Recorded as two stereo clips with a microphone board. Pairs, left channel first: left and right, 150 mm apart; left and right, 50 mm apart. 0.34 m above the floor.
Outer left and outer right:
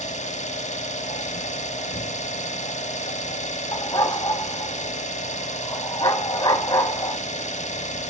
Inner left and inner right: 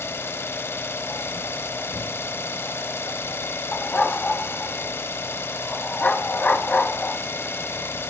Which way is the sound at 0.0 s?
50° left (ahead or behind).